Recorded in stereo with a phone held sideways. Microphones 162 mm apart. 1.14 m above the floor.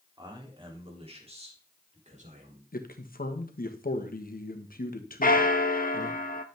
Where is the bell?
60° left (ahead or behind), 0.9 m.